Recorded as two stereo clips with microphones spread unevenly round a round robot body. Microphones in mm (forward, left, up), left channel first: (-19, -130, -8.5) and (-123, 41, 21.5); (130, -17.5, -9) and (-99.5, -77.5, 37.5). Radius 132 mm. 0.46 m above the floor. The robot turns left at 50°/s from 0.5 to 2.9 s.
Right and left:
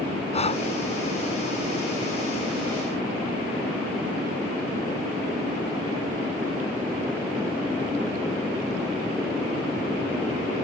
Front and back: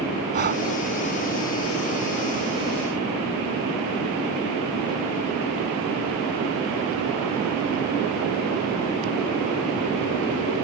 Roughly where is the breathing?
Behind right.